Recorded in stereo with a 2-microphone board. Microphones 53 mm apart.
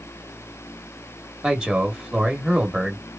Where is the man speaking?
15° right (ahead or behind), 1.0 m.